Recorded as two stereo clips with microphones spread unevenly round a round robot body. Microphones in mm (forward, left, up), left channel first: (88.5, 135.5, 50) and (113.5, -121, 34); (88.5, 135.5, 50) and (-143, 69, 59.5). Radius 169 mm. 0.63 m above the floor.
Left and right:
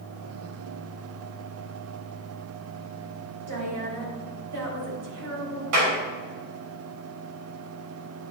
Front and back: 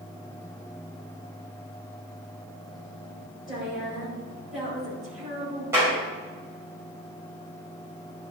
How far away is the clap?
About 3 m.